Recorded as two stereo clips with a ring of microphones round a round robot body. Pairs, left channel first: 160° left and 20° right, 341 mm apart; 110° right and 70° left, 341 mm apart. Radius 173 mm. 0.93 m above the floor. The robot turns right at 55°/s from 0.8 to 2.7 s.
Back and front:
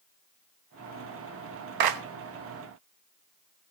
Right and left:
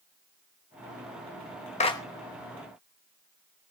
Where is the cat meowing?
No cat meowing in this recording.